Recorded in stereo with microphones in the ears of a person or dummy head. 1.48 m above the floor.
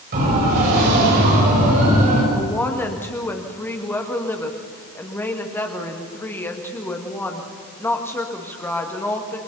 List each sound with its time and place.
0.1 s a siren: 50° right (ahead or behind), 8.5 m; by 2.2 s 45° right (ahead or behind), 7.5 m
2.3 s a woman speaking: 15° left (ahead or behind), 2 m